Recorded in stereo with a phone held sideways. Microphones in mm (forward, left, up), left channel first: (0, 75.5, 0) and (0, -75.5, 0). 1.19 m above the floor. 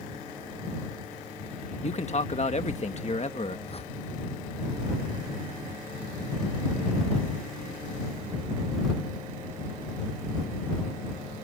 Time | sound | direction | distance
1.8 | a man speaking | 50° left (ahead or behind) | ?
3.7 | a whoosh | 40° left (ahead or behind) | ?